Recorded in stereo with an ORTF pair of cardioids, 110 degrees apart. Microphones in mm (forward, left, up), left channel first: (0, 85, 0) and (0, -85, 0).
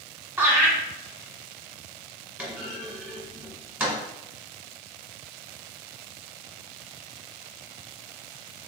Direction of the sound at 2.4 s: 10° right.